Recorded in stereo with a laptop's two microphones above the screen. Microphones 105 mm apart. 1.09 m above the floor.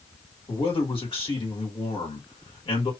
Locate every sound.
0.5 s a man speaking: 55° left (ahead or behind), 1.5 m